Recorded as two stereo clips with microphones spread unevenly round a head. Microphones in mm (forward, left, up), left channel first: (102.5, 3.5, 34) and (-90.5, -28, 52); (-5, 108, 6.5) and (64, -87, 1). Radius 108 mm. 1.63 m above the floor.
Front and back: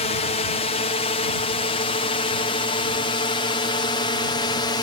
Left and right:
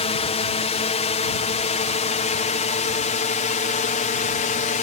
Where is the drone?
55° left; by 4.8 s 70° left.